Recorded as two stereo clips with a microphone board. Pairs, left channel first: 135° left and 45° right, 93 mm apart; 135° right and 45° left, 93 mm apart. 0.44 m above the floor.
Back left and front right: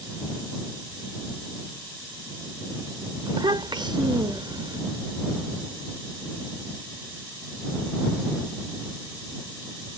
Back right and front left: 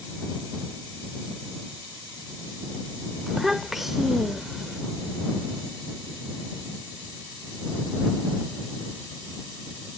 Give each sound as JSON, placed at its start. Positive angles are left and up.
{"t": 3.3, "sound": "a child speaking", "azimuth_deg": -40}